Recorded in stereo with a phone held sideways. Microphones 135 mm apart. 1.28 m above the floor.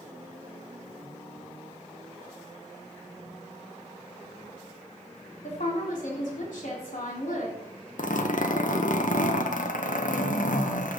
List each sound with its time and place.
5.4 s a woman speaking: 75° left (ahead or behind), 3 m
8.0 s a zipper: 75° left (ahead or behind), 0.8 m